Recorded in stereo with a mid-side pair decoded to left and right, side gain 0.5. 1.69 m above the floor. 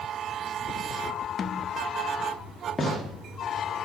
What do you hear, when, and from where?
1.4 s a snare drum: 45° left, 0.6 m
2.8 s a gunshot: 10° left, 2.5 m